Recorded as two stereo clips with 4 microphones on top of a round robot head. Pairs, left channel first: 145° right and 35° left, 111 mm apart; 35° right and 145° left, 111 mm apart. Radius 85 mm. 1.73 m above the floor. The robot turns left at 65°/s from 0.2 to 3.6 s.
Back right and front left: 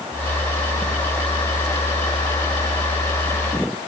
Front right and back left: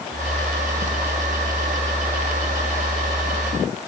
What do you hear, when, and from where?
Only background noise.